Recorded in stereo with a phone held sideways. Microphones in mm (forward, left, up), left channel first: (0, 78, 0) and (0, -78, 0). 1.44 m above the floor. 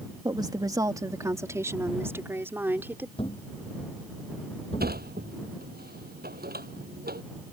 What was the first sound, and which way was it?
A woman speaking, 25° right (ahead or behind).